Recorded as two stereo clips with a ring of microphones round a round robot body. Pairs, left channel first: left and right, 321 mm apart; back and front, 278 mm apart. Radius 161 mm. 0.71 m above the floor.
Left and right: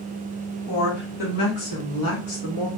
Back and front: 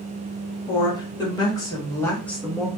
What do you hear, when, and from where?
0.7 s a woman speaking: 110° left, 2 m; by 2.7 s 85° left, 1.0 m